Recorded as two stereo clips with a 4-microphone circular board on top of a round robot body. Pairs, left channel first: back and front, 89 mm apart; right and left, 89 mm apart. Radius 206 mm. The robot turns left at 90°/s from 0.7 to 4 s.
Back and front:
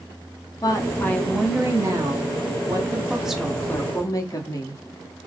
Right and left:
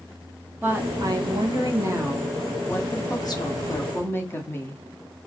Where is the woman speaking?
150° left, 1.5 m; by 4.8 s 145° right, 1.5 m.